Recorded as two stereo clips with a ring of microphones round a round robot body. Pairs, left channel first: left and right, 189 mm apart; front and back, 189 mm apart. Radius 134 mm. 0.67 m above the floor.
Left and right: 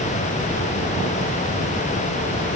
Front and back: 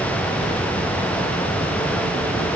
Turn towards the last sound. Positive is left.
No sound to turn to.